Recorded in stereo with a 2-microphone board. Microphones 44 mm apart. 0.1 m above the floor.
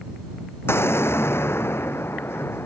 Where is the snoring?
No snoring in this recording.